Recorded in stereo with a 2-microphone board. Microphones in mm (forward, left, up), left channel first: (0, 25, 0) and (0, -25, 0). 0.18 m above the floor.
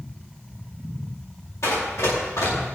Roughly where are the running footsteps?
Left.